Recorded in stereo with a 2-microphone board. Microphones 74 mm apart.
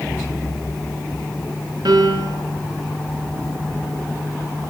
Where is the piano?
70° right (ahead or behind), 4.5 m.